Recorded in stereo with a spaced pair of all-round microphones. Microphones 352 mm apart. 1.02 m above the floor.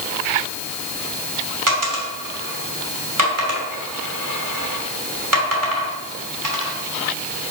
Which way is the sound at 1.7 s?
60° right (ahead or behind).